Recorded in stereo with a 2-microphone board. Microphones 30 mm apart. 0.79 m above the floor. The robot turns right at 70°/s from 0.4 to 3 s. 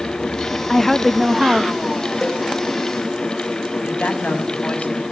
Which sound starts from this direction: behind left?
A woman speaking, at 0.7 s.